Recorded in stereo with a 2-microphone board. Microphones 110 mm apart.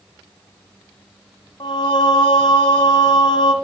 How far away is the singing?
About 1.0 m.